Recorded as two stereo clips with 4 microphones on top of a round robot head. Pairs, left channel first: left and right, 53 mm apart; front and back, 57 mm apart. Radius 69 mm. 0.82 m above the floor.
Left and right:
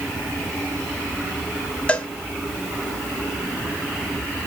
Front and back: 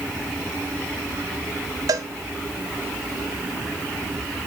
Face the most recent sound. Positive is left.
turn(degrees=160)